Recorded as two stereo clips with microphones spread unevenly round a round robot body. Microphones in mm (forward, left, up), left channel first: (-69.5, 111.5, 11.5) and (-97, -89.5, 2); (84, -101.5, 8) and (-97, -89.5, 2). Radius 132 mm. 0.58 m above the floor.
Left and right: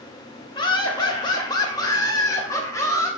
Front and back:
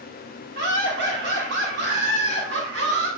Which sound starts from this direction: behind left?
Laughter, at 0.6 s.